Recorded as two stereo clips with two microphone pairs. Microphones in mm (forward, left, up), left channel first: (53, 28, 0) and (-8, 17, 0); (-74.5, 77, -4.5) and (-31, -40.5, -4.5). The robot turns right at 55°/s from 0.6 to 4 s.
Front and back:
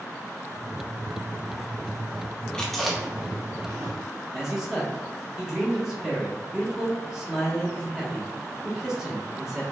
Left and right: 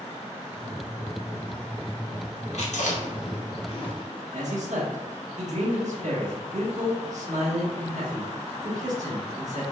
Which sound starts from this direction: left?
Chewing, at 2.5 s.